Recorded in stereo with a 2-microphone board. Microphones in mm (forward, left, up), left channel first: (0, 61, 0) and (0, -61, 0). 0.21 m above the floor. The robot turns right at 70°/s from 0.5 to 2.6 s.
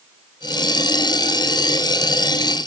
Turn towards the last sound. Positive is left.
No sound to turn to.